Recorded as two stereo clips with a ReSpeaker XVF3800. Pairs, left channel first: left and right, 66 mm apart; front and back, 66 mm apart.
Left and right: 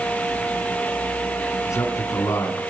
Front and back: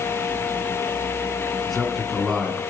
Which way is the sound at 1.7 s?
90° left.